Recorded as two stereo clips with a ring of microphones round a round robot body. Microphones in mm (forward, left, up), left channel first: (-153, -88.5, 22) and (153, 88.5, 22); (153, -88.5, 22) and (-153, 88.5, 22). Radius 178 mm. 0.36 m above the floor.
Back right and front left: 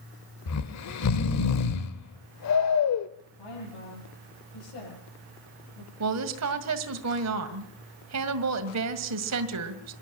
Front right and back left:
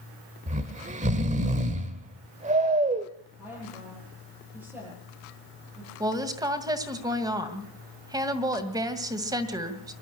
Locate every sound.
0.5 s snoring: 150° right, 1.2 m
3.4 s a woman speaking: 125° right, 8.5 m
6.0 s a woman speaking: 70° left, 2.0 m